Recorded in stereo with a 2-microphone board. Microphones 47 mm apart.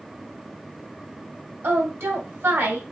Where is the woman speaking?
65° right (ahead or behind), 2 m.